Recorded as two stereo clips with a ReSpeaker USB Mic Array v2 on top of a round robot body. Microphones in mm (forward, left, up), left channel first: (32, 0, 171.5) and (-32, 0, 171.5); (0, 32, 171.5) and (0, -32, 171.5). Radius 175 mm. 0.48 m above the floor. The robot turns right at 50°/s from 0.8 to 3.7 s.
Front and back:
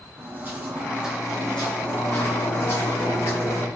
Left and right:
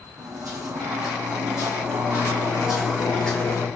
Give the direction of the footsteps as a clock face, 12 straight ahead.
4 o'clock.